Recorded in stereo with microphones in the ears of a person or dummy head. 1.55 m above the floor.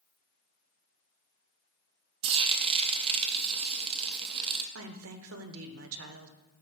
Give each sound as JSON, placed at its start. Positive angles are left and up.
{"t": 2.2, "sound": "frying", "side_deg": -30, "distance_m": 0.7}
{"t": 4.8, "sound": "a woman speaking", "side_deg": -75, "distance_m": 0.8}